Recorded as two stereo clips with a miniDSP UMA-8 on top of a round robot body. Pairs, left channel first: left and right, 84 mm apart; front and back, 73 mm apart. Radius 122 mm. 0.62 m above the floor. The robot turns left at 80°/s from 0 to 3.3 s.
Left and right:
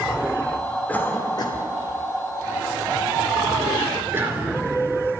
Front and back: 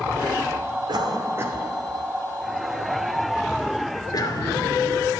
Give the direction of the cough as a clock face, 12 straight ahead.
6 o'clock.